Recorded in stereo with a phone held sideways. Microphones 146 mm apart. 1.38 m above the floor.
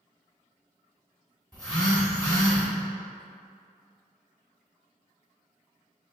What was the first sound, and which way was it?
A phone buzzing, 5° left (ahead or behind).